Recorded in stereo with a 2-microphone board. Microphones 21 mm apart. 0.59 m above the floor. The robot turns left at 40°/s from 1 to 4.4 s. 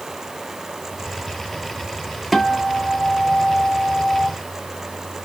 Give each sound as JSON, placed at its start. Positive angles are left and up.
{"t": 2.3, "sound": "a guitar", "azimuth_deg": 175, "distance_m": 1.1}